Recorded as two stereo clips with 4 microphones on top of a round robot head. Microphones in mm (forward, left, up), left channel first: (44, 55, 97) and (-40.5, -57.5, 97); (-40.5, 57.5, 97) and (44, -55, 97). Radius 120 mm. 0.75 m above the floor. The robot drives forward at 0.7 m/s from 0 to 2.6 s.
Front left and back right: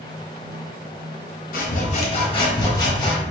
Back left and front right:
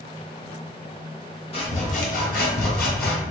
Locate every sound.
1.5 s sawing: 75° left, 1.0 m; by 3.2 s 115° left, 1.1 m